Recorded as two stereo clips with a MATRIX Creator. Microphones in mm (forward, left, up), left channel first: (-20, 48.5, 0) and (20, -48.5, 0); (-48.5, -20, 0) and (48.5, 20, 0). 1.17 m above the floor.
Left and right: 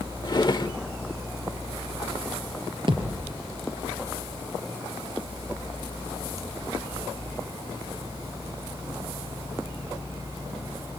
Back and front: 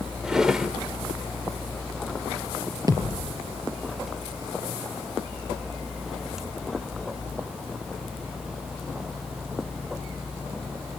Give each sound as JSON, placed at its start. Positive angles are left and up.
{"t": 0.2, "sound": "a drawer", "azimuth_deg": 100, "distance_m": 1.0}
{"t": 2.9, "sound": "a thud", "azimuth_deg": -30, "distance_m": 4.0}